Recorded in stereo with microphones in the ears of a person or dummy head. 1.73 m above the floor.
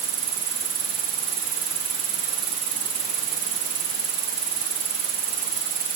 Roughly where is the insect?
Right.